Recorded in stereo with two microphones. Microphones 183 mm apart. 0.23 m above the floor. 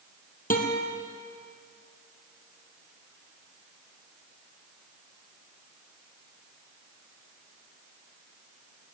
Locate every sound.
0.5 s a guitar: 50° left (ahead or behind), 1.8 m